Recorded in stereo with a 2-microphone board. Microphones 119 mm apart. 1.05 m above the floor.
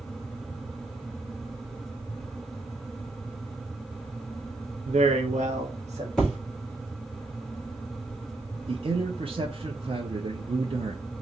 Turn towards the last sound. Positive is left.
turn(degrees=-50)  # may be behind; listen again after turning